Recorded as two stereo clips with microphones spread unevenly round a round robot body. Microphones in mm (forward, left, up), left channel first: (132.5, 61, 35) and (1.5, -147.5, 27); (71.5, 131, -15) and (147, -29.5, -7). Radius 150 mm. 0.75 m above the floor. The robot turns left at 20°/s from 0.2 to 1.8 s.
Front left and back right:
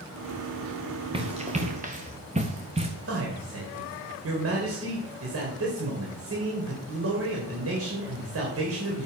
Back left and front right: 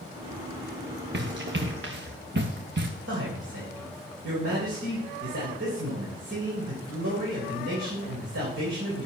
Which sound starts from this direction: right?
A man speaking, at 3.1 s.